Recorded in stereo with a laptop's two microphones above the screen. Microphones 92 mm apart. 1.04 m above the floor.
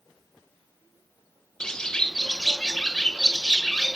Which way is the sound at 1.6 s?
10° left (ahead or behind).